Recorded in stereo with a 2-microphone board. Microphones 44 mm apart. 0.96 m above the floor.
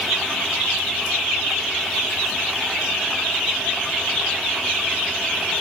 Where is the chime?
No chime in this recording.